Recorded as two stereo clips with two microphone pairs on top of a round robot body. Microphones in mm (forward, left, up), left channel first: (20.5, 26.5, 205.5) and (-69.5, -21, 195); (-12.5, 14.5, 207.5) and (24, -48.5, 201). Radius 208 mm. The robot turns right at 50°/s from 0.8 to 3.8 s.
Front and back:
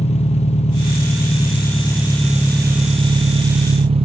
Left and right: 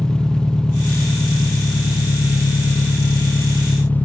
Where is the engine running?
40° left, 1.2 m; by 4.1 s 170° right, 1.2 m.